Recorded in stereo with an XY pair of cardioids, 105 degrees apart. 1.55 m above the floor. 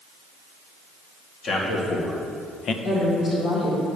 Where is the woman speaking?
65° left, 1.8 m.